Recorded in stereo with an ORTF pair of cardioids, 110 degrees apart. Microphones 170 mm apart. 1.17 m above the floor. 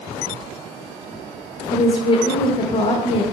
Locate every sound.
1.7 s a woman speaking: 30° left, 0.8 m